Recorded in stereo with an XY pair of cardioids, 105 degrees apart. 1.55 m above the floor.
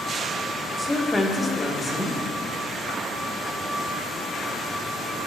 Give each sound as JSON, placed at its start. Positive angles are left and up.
{"t": 0.8, "sound": "a woman speaking", "azimuth_deg": 10, "distance_m": 1.8}